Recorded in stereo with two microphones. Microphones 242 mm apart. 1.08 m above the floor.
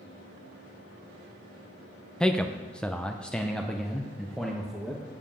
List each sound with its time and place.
2.2 s a man speaking: 5° left (ahead or behind), 0.7 m; by 5.0 s centre (ahead or behind), 1.3 m